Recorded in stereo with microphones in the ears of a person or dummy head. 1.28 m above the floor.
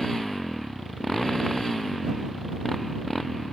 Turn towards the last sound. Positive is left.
turn(degrees=0)  # may be behind; listen again after turning